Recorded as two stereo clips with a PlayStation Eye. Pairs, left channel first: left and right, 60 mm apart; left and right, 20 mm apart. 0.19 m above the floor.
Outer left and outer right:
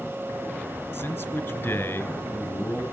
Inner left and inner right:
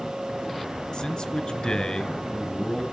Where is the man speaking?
30° left (ahead or behind), 2 m.